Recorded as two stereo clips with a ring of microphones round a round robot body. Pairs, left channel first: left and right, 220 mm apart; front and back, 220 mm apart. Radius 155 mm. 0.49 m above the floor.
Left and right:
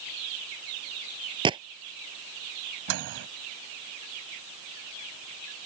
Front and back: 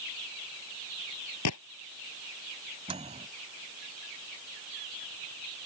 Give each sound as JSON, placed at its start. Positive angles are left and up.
{"t": 1.4, "sound": "a gunshot", "azimuth_deg": -20}
{"t": 2.9, "sound": "a microwave", "azimuth_deg": -110}